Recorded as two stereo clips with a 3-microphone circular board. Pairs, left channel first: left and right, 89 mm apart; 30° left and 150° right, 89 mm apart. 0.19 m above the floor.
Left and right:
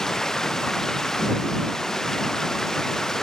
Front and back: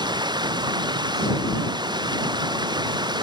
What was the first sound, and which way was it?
Running water, 175° left.